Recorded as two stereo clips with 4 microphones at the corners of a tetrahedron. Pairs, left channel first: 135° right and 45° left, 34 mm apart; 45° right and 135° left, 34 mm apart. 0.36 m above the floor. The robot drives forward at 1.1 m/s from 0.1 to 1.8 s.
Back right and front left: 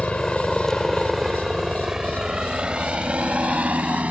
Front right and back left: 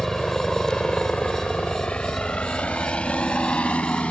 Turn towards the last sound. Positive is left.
turn(degrees=5)